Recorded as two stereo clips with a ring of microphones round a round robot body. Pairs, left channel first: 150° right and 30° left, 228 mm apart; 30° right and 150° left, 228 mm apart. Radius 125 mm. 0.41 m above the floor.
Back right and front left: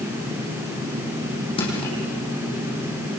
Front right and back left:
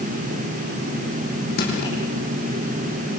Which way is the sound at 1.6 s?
80° right.